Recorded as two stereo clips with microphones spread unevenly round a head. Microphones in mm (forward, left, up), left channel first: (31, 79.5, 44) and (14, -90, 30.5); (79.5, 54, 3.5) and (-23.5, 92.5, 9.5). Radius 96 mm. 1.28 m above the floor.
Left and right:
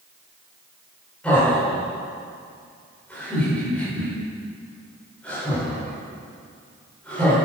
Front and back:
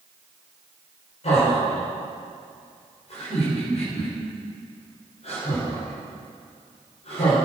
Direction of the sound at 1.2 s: Straight ahead.